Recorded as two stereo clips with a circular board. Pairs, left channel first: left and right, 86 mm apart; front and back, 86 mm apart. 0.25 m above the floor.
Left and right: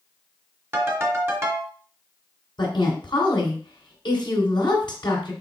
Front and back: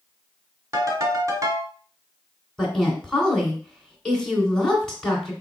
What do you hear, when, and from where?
0.7 s a ringtone: 140° right, 1.5 m
2.6 s a woman speaking: 80° left, 2 m